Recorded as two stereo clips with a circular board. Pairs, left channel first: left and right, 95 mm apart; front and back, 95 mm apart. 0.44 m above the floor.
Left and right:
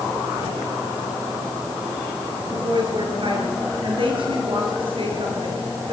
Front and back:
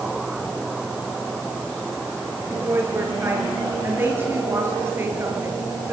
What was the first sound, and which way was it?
A woman speaking, 115° right.